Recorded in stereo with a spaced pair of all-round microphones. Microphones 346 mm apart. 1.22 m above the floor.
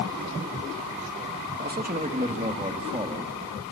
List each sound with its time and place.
1.6 s a man speaking: 30° right (ahead or behind), 1.8 m; by 3.3 s 15° right (ahead or behind), 3 m